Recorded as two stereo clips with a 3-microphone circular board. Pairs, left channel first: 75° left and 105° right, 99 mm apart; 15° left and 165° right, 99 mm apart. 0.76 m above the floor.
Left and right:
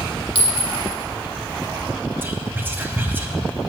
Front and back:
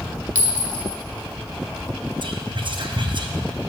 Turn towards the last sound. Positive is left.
turn(degrees=-170)